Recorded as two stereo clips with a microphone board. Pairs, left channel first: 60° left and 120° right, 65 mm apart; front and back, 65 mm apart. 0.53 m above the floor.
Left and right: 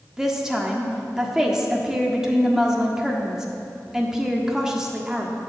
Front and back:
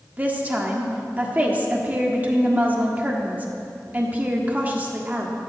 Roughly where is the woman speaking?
Behind.